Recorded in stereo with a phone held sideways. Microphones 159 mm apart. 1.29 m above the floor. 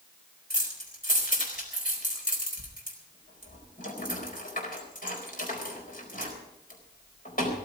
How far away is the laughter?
No laughter in this recording.